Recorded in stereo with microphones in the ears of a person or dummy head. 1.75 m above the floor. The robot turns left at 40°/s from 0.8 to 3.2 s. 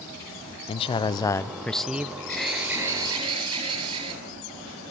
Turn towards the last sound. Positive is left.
turn(degrees=-35)